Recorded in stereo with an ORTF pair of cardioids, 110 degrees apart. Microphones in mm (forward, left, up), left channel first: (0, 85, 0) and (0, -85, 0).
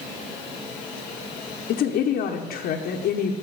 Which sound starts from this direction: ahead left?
A woman speaking, at 1.7 s.